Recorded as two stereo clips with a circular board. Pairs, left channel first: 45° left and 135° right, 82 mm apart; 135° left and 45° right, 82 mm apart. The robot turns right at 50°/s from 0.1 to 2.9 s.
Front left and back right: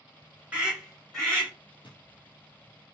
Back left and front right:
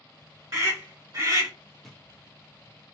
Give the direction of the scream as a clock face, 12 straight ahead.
2 o'clock.